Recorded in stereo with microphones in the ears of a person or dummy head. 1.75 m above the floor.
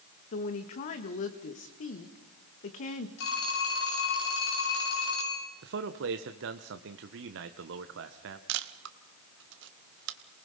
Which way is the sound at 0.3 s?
35° left (ahead or behind).